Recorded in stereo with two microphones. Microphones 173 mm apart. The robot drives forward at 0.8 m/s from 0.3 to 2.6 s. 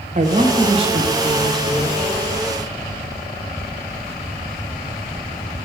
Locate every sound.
0.1 s a man speaking: 45° right (ahead or behind), 0.9 m; by 2.2 s 15° right (ahead or behind), 2 m